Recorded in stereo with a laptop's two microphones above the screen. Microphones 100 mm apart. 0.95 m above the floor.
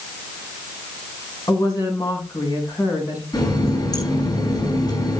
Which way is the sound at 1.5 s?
40° left (ahead or behind).